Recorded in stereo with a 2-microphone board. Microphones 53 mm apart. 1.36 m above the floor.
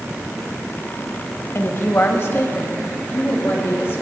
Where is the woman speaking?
45° left (ahead or behind), 1.4 m.